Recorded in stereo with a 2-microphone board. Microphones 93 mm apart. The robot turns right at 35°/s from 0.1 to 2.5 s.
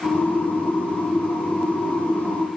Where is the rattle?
I don't hear a rattle.